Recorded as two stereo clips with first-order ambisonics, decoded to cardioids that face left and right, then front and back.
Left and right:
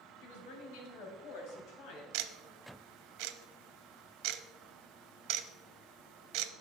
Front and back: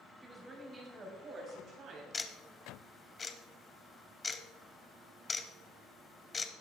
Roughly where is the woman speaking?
Left.